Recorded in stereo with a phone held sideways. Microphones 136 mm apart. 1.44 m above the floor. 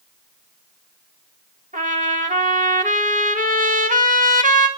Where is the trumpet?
75° right (ahead or behind), 2.0 m.